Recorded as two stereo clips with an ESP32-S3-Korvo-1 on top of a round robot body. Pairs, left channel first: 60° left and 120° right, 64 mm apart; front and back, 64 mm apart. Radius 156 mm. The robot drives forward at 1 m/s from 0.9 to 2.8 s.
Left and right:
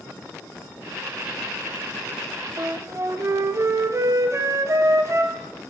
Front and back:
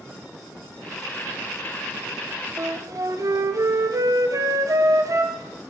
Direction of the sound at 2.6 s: 150° right.